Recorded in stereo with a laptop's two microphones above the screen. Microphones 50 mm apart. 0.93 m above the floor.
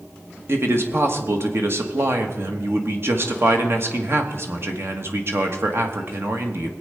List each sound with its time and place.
0.5 s a man speaking: 55° right (ahead or behind), 1.4 m